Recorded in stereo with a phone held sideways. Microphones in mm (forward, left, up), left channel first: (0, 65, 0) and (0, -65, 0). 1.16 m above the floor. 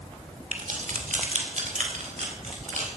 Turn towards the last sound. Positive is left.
turn(degrees=-65)  # may be behind; listen again after turning